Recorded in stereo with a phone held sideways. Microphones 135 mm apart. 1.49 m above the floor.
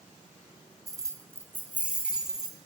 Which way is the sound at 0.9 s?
25° right (ahead or behind).